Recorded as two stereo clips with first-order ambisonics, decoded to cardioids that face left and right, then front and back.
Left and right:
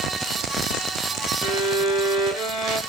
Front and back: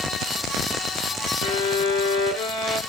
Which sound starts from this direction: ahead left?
A violin, at 1.4 s.